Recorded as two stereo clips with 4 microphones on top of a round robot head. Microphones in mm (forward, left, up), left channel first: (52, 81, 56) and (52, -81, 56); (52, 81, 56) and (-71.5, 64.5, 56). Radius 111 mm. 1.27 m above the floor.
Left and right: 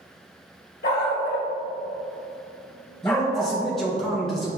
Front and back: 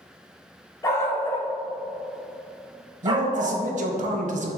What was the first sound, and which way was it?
A dog barking, 70° left.